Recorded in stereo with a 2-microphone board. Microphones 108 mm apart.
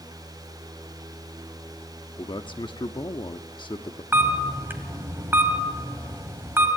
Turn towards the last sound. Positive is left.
turn(degrees=-20)  # may be behind; listen again after turning